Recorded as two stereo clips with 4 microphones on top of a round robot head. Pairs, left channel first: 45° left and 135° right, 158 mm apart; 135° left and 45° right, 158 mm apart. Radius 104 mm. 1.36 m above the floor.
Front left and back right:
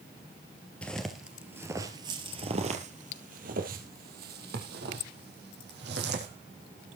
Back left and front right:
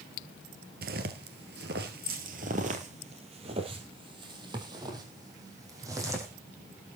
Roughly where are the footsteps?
Ahead right.